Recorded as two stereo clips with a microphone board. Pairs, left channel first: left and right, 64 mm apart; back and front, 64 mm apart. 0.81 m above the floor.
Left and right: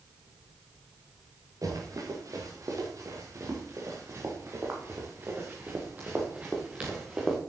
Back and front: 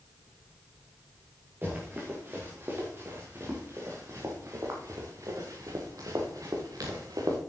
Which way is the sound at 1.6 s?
60° right.